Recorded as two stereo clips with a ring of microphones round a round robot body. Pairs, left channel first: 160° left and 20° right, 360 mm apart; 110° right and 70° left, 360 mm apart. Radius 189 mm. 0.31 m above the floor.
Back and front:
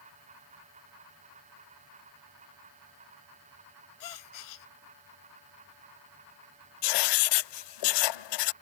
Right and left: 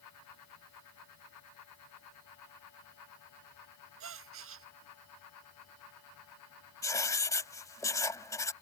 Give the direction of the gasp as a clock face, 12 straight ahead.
8 o'clock.